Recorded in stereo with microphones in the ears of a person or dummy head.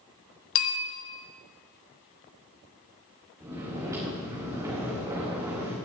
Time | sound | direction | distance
0.6 | a bell | 80° left | 1.3 m
3.4 | snoring | 15° right (ahead or behind) | 4 m